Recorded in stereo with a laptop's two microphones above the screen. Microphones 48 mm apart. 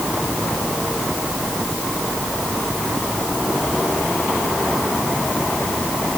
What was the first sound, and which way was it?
Only background noise.